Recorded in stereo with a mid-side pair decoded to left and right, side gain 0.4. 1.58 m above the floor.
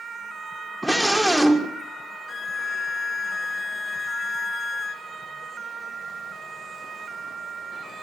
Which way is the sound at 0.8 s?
15° right.